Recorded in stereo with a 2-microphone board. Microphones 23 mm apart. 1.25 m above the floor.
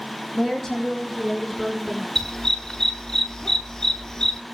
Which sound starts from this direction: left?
A dog barking, at 2.1 s.